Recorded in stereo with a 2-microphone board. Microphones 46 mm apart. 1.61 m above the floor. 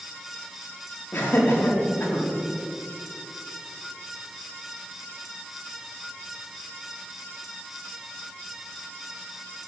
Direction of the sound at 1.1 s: 50° left (ahead or behind).